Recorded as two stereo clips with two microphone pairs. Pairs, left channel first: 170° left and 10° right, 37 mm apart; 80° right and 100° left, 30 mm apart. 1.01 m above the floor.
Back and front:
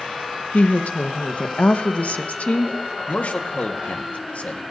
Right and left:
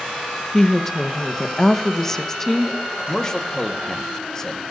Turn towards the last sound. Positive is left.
turn(degrees=-145)